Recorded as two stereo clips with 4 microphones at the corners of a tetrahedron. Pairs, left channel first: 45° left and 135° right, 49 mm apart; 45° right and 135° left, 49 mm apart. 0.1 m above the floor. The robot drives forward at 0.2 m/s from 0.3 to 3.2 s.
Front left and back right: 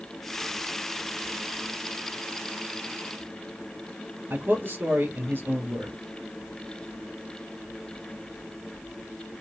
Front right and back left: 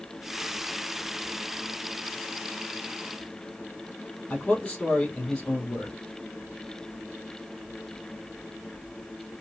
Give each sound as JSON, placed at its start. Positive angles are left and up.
{"t": 4.3, "sound": "a man speaking", "azimuth_deg": -120, "distance_m": 3.0}